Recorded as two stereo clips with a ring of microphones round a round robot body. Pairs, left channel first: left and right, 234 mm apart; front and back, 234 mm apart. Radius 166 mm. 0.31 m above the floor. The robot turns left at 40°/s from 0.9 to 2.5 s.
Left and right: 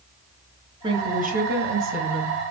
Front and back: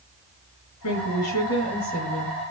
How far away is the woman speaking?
About 4 m.